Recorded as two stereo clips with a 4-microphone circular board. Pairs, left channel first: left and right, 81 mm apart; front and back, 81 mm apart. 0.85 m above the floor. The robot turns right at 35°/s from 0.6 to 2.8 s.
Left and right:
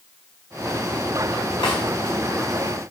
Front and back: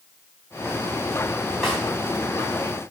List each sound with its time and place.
1.6 s a snare drum: 90° left, 3.5 m; by 1.8 s 95° left, 3.5 m